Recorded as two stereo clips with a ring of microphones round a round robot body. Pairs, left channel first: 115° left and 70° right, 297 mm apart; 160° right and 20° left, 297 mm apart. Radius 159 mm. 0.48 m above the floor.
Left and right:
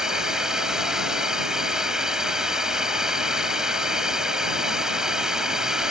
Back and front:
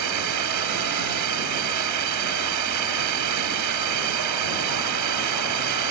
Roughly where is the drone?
Ahead.